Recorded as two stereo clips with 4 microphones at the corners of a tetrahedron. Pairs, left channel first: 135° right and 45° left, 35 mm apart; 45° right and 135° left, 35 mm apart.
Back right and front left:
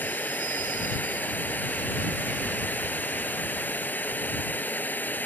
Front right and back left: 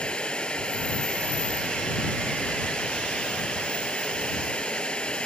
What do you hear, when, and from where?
0.0 s running water: 105° right